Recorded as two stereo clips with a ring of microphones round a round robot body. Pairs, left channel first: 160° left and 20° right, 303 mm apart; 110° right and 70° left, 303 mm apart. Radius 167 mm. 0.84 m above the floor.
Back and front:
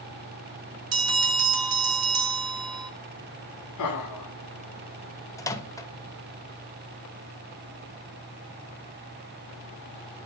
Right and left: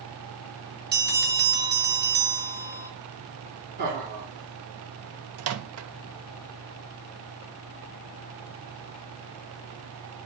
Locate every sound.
0.9 s a bell: 10° left, 1.9 m
3.8 s laughter: 125° left, 2.5 m
5.4 s a microwave: 80° left, 0.9 m